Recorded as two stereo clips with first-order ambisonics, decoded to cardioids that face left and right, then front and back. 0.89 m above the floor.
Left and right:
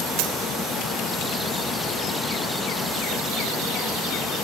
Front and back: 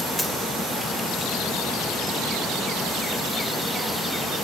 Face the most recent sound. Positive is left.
turn(degrees=-85)